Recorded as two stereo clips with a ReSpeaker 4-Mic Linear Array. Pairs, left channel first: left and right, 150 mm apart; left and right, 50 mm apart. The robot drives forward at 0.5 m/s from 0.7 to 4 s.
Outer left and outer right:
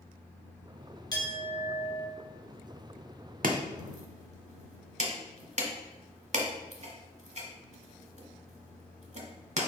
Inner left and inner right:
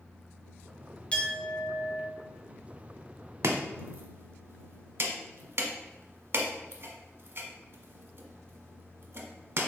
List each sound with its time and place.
1.1 s a clink: 25° left (ahead or behind), 1.1 m; by 2.1 s 35° left (ahead or behind), 0.9 m
3.4 s chopping: 65° right (ahead or behind), 0.7 m; by 9.7 s 50° right (ahead or behind), 0.8 m